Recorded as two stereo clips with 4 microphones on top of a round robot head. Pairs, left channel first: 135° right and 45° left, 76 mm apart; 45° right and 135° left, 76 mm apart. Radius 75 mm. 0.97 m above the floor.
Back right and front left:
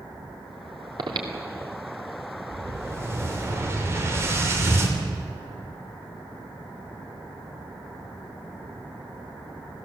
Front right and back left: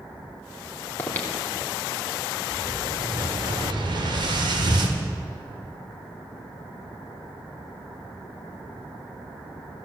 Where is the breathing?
20° left, 2.5 m.